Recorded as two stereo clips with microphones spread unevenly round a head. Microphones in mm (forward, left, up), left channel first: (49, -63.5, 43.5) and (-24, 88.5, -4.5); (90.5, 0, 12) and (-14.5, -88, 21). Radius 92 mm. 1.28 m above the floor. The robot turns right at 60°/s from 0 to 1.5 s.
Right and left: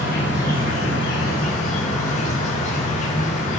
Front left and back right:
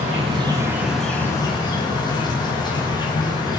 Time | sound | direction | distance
0.0 | an insect | 110° right | 5.5 m